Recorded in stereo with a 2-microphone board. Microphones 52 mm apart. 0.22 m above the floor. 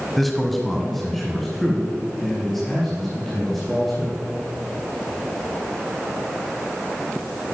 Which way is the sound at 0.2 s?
Centre (ahead or behind).